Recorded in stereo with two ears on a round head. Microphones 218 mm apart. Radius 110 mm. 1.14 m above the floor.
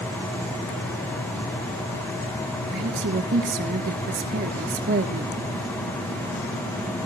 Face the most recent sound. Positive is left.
turn(degrees=-40)  # may be behind; listen again after turning